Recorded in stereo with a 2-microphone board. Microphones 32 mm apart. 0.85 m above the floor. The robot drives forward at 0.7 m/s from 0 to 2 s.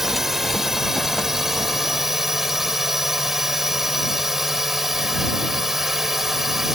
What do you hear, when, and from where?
0.0 s a drone: 10° right (ahead or behind)